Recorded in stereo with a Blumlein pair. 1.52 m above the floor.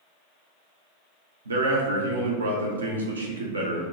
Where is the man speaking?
70° right, 0.6 m.